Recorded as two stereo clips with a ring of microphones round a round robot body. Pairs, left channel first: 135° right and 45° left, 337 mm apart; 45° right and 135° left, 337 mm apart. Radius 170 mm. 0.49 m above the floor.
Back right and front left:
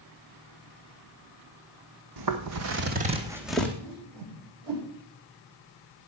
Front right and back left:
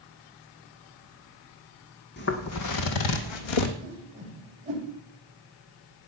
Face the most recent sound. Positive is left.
turn(degrees=65)